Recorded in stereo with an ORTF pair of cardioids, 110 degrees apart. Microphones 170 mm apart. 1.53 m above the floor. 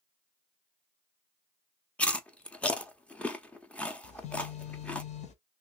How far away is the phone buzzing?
About 0.9 m.